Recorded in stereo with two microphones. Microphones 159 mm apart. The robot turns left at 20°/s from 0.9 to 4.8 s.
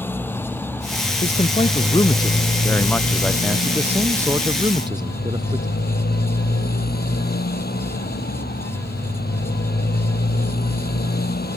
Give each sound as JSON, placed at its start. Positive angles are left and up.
{"t": 0.0, "sound": "a motorcycle", "azimuth_deg": 170}
{"t": 1.2, "sound": "a man speaking", "azimuth_deg": 45}